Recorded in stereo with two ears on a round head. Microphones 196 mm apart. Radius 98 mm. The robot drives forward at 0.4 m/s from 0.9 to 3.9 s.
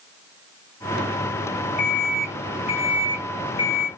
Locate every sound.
1.8 s an alarm clock: 35° left (ahead or behind), 1.7 m; by 3.9 s 25° left (ahead or behind), 2.5 m